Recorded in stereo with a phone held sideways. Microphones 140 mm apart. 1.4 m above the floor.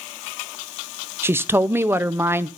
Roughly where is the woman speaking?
Centre.